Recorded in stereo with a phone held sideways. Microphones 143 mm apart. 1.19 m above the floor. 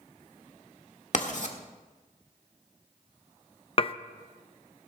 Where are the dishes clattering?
40° left (ahead or behind), 0.5 m.